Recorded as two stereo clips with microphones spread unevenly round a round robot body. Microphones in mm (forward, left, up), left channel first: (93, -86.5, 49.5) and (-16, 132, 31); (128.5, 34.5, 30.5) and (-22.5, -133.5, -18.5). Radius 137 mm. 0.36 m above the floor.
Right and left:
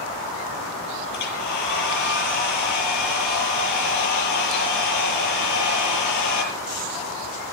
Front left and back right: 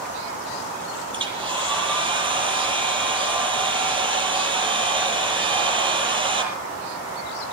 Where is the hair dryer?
60° right, 7.5 m.